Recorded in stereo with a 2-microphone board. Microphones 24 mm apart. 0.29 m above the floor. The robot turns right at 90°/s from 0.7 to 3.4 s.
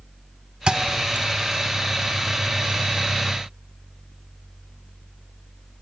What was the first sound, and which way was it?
A thud, 35° right (ahead or behind).